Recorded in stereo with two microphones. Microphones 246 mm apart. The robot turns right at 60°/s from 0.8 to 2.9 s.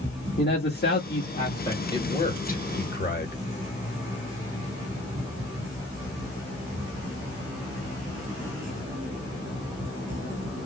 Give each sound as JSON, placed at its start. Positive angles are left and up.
{"t": 0.4, "sound": "a man speaking", "azimuth_deg": 105, "distance_m": 1.3}
{"t": 1.9, "sound": "a man speaking", "azimuth_deg": 25, "distance_m": 1.1}